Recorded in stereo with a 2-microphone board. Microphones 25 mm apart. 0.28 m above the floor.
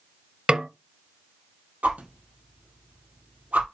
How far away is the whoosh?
About 2 m.